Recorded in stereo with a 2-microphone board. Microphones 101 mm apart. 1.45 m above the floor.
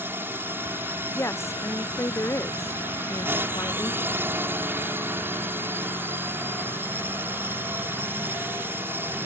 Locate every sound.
0.0 s a drone: 20° right (ahead or behind)
1.1 s a woman speaking: 25° left (ahead or behind)